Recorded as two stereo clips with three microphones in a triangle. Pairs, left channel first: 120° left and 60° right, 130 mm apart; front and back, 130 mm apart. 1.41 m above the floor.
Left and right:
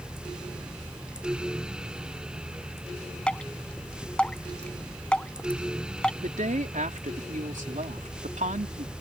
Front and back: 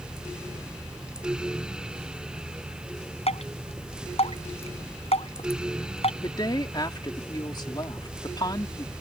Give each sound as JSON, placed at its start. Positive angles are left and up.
{"t": 3.3, "sound": "dripping", "azimuth_deg": 40}
{"t": 6.2, "sound": "a woman speaking", "azimuth_deg": -55}